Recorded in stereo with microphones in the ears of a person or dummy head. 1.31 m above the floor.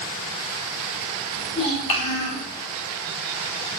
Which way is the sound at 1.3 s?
35° left (ahead or behind).